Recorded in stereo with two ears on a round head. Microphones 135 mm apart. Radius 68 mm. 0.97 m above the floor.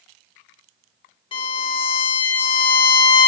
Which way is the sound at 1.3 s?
35° left (ahead or behind).